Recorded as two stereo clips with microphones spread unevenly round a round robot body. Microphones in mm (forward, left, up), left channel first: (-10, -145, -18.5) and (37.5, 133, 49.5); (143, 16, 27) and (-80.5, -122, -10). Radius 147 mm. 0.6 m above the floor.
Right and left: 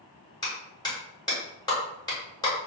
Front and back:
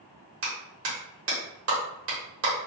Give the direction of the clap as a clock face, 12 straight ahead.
6 o'clock.